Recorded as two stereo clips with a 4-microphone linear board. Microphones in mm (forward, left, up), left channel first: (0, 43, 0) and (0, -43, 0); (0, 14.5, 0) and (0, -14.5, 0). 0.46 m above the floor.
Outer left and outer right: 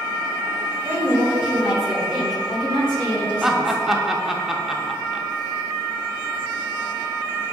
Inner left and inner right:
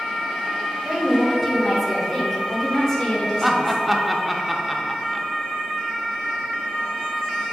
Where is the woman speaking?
25° right (ahead or behind), 1.6 m; by 3.8 s 20° left (ahead or behind), 2 m.